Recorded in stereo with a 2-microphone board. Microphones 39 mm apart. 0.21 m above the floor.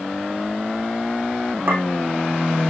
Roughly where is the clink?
Right.